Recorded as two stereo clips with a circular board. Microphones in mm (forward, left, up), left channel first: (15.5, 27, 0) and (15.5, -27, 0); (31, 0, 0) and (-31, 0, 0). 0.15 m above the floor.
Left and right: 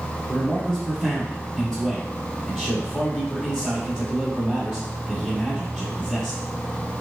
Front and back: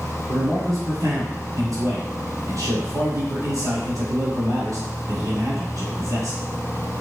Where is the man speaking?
170° left, 2 m.